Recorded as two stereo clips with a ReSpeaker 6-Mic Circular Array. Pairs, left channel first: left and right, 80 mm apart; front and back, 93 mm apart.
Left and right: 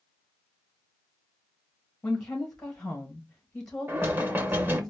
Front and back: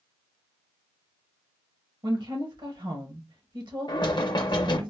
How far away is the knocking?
About 0.7 m.